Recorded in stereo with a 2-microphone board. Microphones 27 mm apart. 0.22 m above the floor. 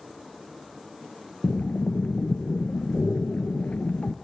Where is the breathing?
85° left, 0.6 m.